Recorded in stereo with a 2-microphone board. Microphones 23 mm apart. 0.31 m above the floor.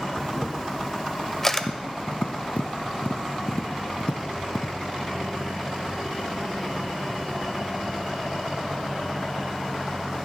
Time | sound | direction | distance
0.2 | a camera shutter | 20° left (ahead or behind) | 0.6 m
1.6 | tapping | 70° left (ahead or behind) | 0.6 m